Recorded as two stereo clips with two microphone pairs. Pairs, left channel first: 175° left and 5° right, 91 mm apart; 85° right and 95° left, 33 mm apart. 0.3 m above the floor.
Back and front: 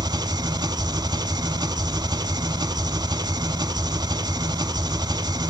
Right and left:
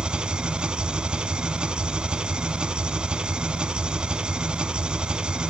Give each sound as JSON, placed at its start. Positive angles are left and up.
{"t": 0.0, "sound": "an engine running", "azimuth_deg": 35, "distance_m": 0.8}